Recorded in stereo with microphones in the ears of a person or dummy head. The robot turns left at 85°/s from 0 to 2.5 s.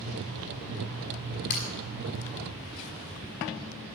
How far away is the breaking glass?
About 5.5 m.